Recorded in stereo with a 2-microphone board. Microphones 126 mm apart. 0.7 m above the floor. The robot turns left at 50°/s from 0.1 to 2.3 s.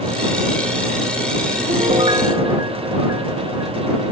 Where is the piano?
120° right; by 3.7 s 150° right.